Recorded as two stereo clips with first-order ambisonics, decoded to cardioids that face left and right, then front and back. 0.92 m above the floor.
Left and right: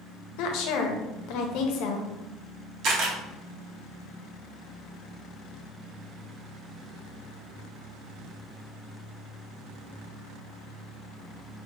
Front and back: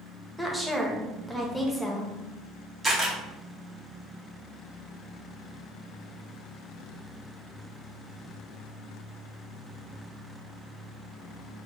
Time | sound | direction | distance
0.4 | a woman speaking | 85° left | 0.6 m
2.8 | a camera shutter | 100° right | 1.0 m